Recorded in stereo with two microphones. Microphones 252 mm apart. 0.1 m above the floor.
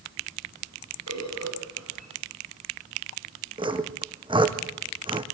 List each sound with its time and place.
1.1 s a bird: 80° right, 7.5 m
3.6 s sawing: 20° right (ahead or behind), 1.8 m